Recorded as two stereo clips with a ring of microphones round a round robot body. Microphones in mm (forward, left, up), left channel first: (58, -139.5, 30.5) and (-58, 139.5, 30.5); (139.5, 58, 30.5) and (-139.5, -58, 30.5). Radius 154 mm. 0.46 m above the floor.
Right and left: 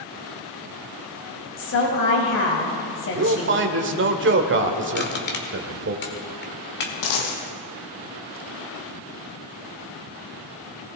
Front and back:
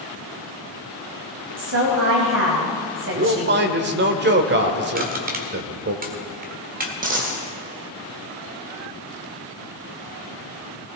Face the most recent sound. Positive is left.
turn(degrees=-95)